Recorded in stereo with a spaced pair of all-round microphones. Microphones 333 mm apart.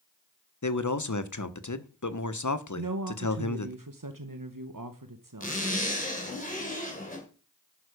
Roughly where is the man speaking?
Left.